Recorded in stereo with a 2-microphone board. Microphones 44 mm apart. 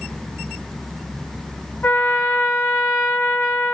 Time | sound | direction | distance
1.8 | a trumpet | 50° left (ahead or behind) | 1.4 m